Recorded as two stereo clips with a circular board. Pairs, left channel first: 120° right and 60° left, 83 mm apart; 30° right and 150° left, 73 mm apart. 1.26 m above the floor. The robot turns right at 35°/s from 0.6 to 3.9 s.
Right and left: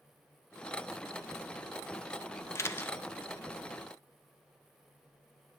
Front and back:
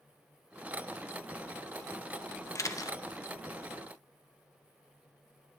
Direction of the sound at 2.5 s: 70° right.